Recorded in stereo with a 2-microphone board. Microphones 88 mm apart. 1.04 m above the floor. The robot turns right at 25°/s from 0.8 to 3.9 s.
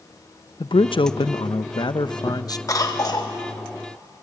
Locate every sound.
0.6 s a man speaking: 90° left, 0.6 m; by 2.6 s 135° left, 0.6 m
2.7 s a cough: 40° left (ahead or behind), 0.9 m; by 3.3 s 55° left (ahead or behind), 0.9 m